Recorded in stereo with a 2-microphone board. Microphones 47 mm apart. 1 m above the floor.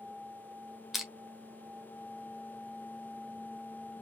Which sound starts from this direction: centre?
Crushing, at 0.9 s.